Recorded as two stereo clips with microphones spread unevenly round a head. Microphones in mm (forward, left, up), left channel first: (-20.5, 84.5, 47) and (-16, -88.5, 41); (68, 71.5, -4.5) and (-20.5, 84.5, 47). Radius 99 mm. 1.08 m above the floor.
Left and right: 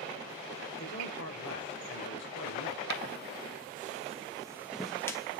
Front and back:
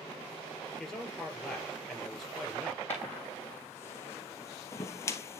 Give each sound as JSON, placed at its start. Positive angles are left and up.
{"t": 0.8, "sound": "a man speaking", "azimuth_deg": 75, "distance_m": 4.5}
{"t": 2.9, "sound": "footsteps", "azimuth_deg": -110, "distance_m": 1.9}